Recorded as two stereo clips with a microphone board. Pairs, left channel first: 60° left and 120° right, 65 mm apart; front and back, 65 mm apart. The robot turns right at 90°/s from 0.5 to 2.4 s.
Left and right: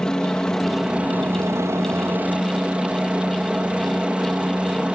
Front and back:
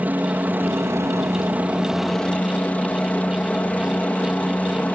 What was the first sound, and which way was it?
A helicopter, 135° left.